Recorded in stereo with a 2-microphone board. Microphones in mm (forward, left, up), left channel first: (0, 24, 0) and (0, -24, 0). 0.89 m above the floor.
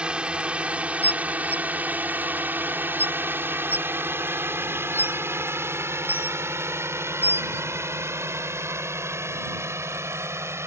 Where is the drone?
20° right (ahead or behind); by 10.7 s 75° right (ahead or behind).